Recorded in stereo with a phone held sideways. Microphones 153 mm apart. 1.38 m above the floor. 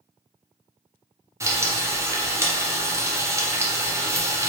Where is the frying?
20° right (ahead or behind), 0.7 m.